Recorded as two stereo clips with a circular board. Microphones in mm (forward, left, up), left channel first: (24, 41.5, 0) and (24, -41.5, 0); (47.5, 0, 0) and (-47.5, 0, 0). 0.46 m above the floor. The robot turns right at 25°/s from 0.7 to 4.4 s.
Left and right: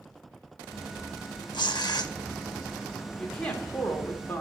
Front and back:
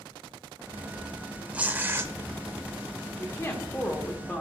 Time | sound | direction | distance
1.5 | tearing paper | 105° left | 0.6 m
3.2 | a woman speaking | 25° left | 1.0 m